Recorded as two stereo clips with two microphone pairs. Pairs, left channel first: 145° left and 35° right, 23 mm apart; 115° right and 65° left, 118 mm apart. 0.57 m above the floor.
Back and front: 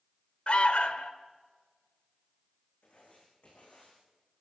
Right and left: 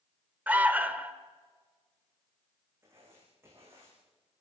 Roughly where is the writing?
Behind left.